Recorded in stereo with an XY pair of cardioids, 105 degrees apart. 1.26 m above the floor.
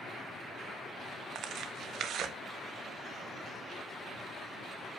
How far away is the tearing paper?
About 1.4 m.